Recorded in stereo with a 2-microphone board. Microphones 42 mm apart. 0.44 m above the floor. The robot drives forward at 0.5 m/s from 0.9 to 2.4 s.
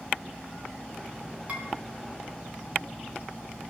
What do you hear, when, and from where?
1.5 s dishes clattering: 35° right (ahead or behind), 3.5 m